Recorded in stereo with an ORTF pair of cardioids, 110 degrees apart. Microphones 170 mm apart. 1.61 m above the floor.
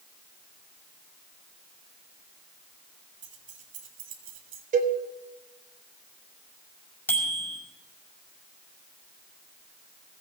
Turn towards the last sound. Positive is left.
turn(degrees=10)